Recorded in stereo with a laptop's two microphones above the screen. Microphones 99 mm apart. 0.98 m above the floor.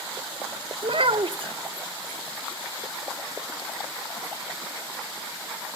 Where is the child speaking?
60° right (ahead or behind), 0.5 m.